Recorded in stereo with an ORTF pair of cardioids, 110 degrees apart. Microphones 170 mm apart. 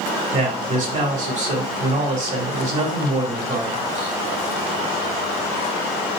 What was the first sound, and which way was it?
A man speaking, 45° right.